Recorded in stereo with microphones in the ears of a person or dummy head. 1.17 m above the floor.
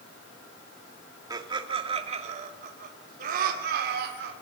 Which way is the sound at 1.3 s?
25° right (ahead or behind).